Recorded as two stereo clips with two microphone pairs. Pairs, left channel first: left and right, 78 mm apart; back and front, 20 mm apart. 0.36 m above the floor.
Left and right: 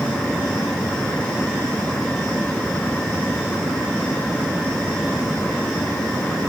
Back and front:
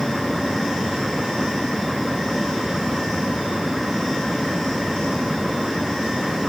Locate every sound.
Only background noise.